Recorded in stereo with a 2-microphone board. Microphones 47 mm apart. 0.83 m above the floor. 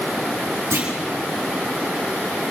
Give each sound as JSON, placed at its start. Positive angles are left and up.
{"t": 0.7, "sound": "a clunk", "side_deg": -70, "distance_m": 8.0}